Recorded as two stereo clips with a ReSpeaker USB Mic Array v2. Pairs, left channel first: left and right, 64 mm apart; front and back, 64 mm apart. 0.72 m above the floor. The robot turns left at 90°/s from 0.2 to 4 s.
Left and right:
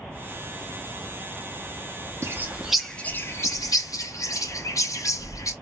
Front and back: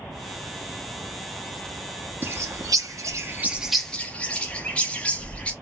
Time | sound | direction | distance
2.2 | a bird | 130° right | 0.6 m